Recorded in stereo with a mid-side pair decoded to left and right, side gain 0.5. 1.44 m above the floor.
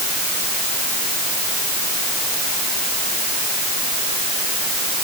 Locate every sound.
Only background noise.